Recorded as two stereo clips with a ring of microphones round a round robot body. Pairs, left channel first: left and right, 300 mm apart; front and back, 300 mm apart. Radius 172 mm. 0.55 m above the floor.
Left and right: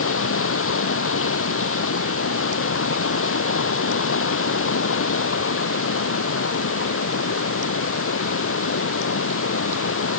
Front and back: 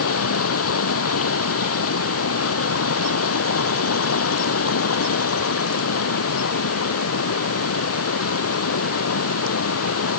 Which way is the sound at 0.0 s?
45° left.